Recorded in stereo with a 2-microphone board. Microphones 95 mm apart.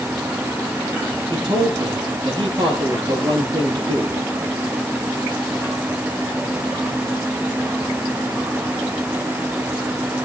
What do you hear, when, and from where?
1.3 s a man speaking: 50° right (ahead or behind), 8.5 m